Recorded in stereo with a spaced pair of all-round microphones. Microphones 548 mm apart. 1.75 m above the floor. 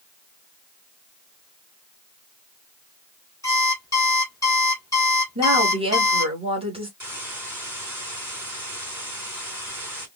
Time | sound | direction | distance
3.4 | an alarm clock | 5° left (ahead or behind) | 3 m
5.3 | a woman speaking | 10° right (ahead or behind) | 3 m
7.0 | a hiss | 30° right (ahead or behind) | 3.5 m